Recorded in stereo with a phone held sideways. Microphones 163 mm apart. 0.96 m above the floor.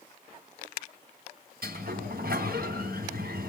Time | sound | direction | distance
1.6 | a sliding door | 75° right (ahead or behind) | 3 m